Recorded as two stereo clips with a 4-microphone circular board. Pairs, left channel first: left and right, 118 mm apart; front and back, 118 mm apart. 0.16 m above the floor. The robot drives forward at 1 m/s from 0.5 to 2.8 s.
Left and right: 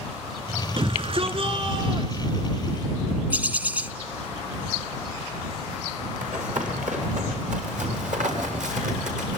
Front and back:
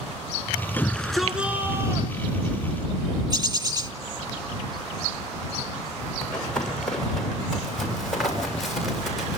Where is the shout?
70° right, 1.6 m; by 2.9 s 145° right, 2 m.